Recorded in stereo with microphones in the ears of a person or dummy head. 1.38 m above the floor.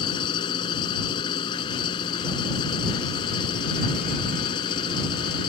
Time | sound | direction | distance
0.0 | an engine running | 30° left (ahead or behind) | ?